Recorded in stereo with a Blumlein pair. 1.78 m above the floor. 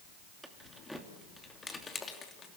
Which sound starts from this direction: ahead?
Keys jangling, at 0.4 s.